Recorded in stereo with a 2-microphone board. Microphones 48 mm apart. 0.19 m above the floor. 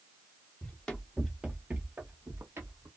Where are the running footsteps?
30° left (ahead or behind), 0.8 m; by 2.9 s 70° right (ahead or behind), 1.2 m.